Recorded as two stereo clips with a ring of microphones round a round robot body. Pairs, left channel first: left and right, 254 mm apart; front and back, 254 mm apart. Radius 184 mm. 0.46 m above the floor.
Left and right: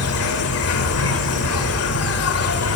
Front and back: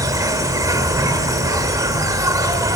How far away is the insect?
About 1.8 m.